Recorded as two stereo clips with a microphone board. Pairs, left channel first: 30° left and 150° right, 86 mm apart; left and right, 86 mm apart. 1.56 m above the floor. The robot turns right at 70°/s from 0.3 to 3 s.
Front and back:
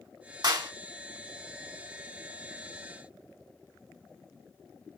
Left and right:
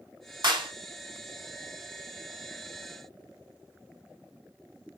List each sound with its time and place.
0.4 s a clap: 120° right, 2.5 m; by 0.7 s 100° right, 2.5 m